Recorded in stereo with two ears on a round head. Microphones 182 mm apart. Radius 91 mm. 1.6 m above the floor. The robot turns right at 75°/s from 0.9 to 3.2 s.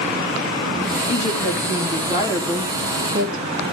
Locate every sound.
1.1 s a woman speaking: 70° left, 3.5 m; by 3.4 s 135° right, 3.5 m